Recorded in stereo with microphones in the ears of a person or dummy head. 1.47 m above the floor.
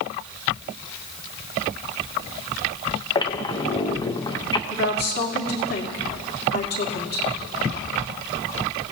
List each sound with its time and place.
3.1 s a squeak: 20° left (ahead or behind), 0.8 m
4.7 s a woman speaking: 50° left (ahead or behind), 2.5 m